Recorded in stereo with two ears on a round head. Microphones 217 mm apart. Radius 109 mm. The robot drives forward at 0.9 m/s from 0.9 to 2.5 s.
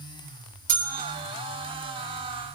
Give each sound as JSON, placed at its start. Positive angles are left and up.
{"t": 0.7, "sound": "a bell", "side_deg": -40, "distance_m": 1.7}